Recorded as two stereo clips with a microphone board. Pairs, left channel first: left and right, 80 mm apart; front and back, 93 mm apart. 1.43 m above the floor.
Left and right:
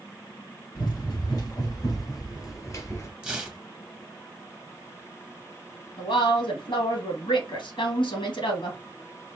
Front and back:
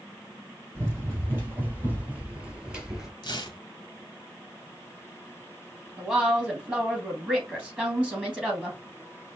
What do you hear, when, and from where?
0.8 s running footsteps: 120° left, 3 m; by 3.1 s 100° left, 1.6 m
3.2 s tearing paper: 15° right, 1.0 m
6.0 s a woman speaking: 100° left, 2.5 m